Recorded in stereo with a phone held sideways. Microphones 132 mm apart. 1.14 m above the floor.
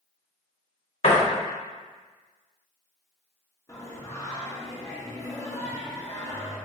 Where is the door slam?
55° left (ahead or behind), 0.9 m.